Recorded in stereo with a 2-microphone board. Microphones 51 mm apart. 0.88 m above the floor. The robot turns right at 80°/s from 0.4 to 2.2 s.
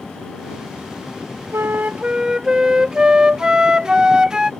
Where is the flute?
70° right; by 4.5 s 15° right.